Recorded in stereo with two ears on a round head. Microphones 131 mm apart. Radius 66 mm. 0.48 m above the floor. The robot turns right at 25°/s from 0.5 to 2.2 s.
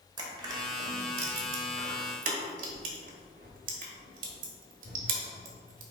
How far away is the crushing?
About 1.3 m.